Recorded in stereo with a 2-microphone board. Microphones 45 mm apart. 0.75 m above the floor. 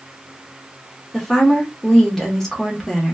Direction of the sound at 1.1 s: 5° left (ahead or behind).